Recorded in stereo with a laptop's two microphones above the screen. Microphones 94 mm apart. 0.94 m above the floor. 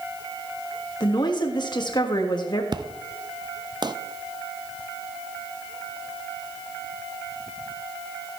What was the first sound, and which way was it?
A woman speaking, 50° left (ahead or behind).